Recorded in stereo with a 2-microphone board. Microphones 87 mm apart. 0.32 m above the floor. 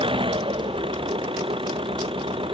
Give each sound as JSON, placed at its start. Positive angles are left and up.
{"t": 0.0, "sound": "an engine running", "side_deg": -85}